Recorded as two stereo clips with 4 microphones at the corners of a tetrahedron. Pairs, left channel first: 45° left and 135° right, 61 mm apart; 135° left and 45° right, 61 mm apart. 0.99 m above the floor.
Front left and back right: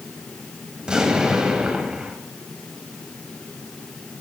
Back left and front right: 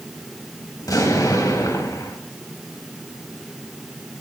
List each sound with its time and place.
0.8 s an explosion: 150° left, 3.5 m